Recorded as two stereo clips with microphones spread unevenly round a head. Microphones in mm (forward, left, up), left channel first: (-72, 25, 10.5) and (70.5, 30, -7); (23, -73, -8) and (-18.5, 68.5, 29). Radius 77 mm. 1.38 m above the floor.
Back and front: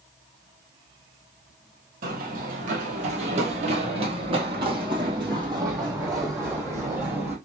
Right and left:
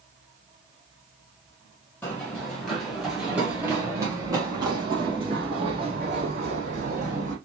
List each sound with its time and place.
2.0 s running footsteps: 10° left, 2 m; by 7.3 s 80° left, 3.5 m